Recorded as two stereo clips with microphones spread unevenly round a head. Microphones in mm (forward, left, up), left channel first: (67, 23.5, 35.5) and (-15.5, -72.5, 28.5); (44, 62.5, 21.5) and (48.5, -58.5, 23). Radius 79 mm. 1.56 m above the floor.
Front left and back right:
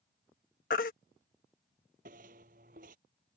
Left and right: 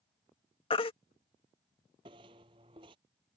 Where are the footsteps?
140° right.